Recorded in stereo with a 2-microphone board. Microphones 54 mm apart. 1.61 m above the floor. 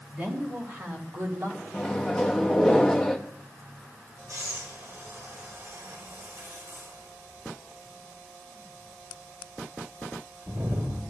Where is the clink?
I don't hear a clink.